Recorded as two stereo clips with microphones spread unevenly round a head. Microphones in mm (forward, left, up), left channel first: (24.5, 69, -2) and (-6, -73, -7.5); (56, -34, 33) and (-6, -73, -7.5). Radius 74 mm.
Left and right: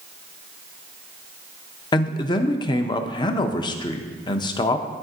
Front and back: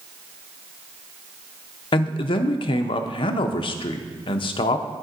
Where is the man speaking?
35° left, 0.6 m.